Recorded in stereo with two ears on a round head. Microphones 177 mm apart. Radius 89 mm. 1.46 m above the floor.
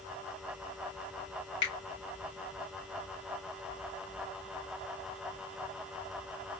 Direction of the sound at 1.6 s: 55° left (ahead or behind).